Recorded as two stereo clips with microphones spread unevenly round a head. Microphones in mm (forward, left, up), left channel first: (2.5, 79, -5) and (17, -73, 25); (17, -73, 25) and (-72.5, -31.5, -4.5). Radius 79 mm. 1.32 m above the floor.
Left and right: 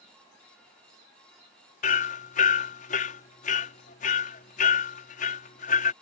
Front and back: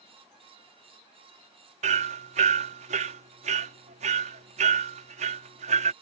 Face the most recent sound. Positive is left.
turn(degrees=140)